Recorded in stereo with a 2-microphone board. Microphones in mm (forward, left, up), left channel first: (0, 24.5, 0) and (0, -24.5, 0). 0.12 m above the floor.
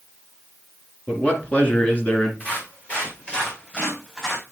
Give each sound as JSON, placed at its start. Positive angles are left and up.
{"t": 1.1, "sound": "a man speaking", "side_deg": 30, "distance_m": 2.0}
{"t": 2.4, "sound": "footsteps", "side_deg": 35, "distance_m": 5.0}